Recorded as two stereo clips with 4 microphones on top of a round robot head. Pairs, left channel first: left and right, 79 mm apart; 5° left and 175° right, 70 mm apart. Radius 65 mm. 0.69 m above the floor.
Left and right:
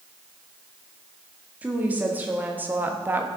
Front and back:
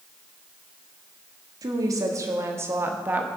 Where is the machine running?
I don't hear a machine running.